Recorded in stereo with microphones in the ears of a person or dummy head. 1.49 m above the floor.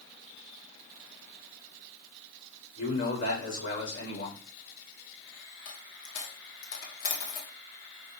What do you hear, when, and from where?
2.8 s a man speaking: 75° left (ahead or behind), 4 m
5.7 s a dropped coin: 50° left (ahead or behind), 1.8 m